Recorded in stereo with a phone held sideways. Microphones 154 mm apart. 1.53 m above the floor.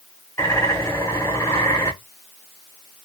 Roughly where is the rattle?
No rattle in this recording.